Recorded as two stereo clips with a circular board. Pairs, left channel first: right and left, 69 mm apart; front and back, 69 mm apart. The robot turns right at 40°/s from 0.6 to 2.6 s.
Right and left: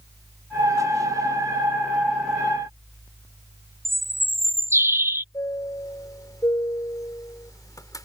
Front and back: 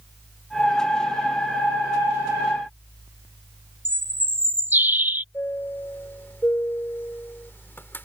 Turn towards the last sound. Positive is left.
turn(degrees=-60)